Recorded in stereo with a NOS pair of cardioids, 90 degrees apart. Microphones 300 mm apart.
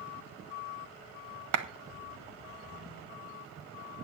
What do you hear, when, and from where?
1.5 s a clap: 65° right, 1.1 m